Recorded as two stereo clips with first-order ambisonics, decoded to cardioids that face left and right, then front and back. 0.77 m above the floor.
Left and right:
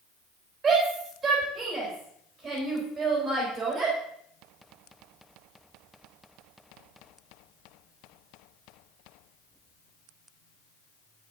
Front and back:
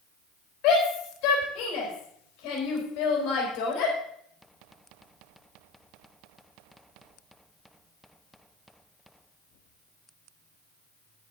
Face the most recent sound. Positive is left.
turn(degrees=-30)